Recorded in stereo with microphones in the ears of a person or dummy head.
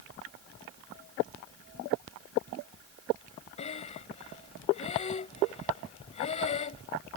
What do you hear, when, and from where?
3.6 s breathing: 30° left (ahead or behind)